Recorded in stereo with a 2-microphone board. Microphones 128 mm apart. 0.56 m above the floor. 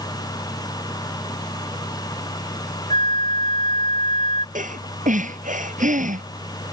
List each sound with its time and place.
2.9 s a flute: 75° right (ahead or behind)
4.5 s breathing: 85° right